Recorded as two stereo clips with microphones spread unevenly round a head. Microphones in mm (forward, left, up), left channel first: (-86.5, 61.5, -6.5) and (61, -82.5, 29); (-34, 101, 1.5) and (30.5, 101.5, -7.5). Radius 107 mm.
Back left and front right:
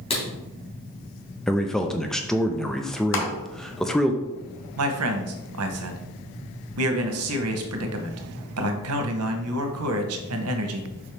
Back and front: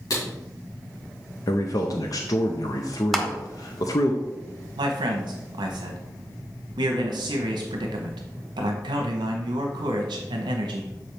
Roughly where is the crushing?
Left.